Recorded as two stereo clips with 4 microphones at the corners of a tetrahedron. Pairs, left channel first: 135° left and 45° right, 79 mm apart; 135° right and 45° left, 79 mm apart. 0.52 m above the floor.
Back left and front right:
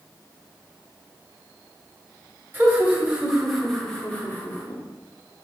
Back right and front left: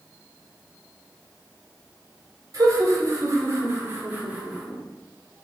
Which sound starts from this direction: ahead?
Laughter, at 2.5 s.